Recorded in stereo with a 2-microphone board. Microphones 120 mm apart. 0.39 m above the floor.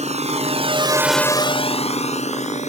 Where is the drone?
75° right (ahead or behind); by 2.7 s 75° left (ahead or behind).